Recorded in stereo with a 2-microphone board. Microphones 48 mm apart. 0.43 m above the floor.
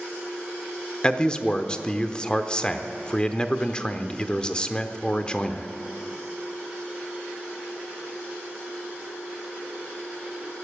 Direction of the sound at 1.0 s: 20° left (ahead or behind).